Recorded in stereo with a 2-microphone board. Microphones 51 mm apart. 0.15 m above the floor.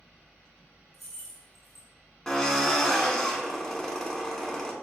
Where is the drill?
10° left (ahead or behind), 0.6 m.